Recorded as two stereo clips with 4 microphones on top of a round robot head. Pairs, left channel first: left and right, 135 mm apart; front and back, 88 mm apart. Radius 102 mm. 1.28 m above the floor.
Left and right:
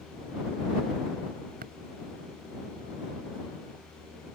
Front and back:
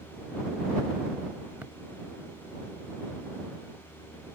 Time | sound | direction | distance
1.6 | tapping | 100° right | ?